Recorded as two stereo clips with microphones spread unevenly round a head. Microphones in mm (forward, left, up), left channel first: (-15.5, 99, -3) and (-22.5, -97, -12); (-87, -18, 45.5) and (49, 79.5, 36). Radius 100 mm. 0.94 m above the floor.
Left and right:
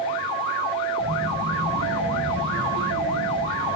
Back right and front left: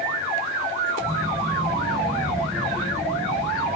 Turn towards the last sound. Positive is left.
turn(degrees=-60)